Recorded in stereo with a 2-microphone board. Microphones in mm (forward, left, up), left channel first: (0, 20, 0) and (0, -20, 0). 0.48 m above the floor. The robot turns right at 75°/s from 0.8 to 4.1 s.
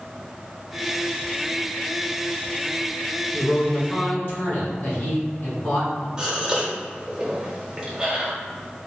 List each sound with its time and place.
3.3 s a man speaking: 10° left, 1.9 m; by 6.1 s 70° left, 1.9 m
6.2 s a gasp: 20° right (ahead or behind), 1.0 m